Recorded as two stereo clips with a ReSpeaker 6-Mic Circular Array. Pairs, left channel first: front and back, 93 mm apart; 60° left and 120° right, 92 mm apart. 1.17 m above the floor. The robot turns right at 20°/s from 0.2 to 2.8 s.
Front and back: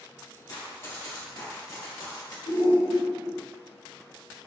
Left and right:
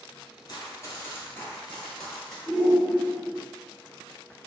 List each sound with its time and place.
0.5 s running footsteps: 30° left, 1.6 m; by 2.4 s 25° right, 1.6 m
2.5 s a shout: 15° right, 1.0 m; by 3.4 s 10° right, 1.0 m